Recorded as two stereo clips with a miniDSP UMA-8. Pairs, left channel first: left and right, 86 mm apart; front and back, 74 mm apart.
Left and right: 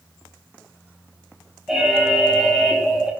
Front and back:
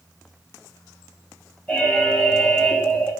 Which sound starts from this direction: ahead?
An alarm, at 1.7 s.